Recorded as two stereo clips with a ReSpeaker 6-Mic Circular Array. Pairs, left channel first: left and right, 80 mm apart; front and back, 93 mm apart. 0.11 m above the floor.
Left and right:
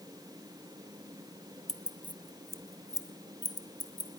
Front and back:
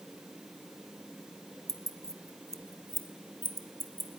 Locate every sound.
1.7 s keys jangling: 170° left, 1.3 m; by 4.2 s 115° left, 3 m